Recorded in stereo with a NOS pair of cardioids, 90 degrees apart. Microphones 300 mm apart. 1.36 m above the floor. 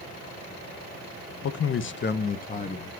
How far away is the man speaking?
About 1.0 m.